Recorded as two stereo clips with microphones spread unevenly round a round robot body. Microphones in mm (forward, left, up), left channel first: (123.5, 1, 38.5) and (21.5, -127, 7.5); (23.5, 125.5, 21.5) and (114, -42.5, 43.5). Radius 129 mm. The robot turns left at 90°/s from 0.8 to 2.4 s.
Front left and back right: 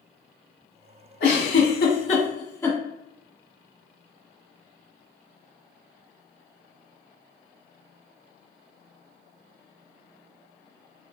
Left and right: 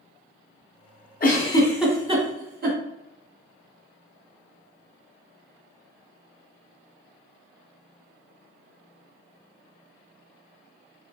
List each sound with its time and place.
1.2 s a giggle: 85° left, 1.7 m; by 2.8 s 25° right, 1.7 m